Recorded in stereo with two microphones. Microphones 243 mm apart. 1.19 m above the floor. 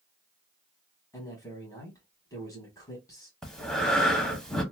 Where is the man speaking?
15° left (ahead or behind), 1.5 m.